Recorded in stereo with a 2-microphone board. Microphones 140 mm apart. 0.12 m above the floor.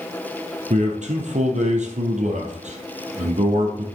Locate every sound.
0.7 s a man speaking: 60° right (ahead or behind), 3 m